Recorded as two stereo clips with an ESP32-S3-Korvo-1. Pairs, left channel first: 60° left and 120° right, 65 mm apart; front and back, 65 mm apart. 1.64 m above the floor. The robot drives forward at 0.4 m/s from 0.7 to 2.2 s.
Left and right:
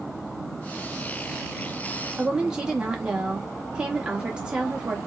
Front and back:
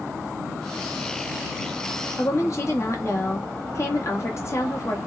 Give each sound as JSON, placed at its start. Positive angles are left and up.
{"t": 2.2, "sound": "a woman speaking", "azimuth_deg": -45, "distance_m": 1.4}